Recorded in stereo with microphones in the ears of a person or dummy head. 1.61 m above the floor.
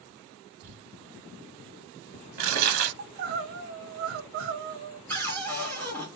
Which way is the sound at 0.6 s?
45° right (ahead or behind).